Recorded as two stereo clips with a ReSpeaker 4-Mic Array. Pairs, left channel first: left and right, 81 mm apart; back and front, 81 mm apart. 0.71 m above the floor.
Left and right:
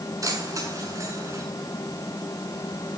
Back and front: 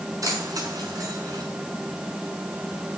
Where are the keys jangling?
45° right, 6.5 m; by 1.4 s 40° right, 6.5 m.